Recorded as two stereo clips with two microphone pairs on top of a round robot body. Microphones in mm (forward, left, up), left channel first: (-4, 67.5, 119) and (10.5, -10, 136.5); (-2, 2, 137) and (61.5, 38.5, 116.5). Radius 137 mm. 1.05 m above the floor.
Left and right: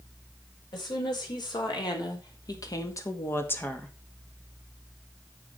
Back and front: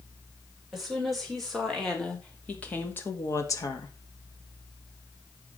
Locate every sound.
0.7 s a woman speaking: 120° left, 5 m; by 4.0 s 175° left, 1.8 m